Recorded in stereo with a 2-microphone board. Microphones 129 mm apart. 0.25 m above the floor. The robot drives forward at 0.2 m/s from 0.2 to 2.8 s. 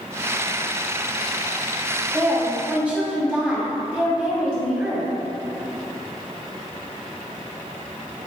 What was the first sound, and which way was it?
A woman speaking, 10° right (ahead or behind).